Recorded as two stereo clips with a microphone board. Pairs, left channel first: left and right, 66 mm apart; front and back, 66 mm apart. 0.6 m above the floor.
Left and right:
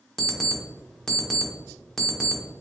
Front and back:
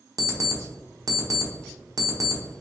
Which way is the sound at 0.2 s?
165° left.